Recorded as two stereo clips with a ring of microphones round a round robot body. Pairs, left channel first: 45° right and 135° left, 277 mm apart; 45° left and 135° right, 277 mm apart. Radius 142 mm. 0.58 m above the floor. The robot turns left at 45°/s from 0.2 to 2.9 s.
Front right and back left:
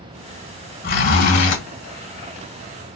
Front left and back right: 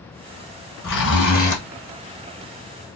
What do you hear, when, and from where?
0.8 s a zipper: 10° left, 2.5 m; by 1.6 s 25° right, 2.5 m